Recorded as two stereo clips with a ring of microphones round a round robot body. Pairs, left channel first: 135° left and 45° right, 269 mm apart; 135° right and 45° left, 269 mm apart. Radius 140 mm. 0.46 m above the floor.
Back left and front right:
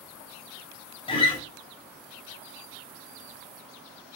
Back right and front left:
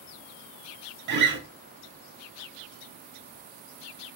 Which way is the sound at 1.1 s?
70° left.